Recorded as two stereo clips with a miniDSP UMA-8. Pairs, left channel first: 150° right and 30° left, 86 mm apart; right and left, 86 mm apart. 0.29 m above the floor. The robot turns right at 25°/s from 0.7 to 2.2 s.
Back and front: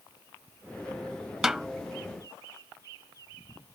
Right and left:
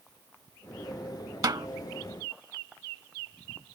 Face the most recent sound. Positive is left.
turn(degrees=135)